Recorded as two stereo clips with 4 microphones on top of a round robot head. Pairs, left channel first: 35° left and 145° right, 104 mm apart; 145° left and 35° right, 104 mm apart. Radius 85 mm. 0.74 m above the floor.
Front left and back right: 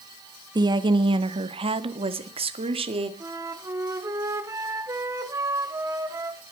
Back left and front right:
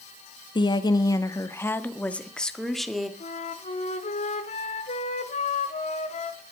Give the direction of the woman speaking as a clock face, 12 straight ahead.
6 o'clock.